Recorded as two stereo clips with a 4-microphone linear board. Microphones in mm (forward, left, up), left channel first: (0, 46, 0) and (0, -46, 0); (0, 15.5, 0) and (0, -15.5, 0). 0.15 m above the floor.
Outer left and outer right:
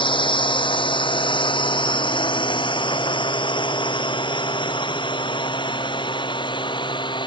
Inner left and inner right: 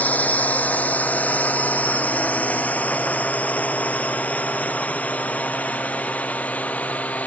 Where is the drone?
70° left (ahead or behind); by 7.3 s 65° left (ahead or behind).